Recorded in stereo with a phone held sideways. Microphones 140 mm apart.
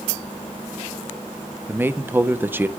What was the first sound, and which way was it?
A man speaking, 15° right (ahead or behind).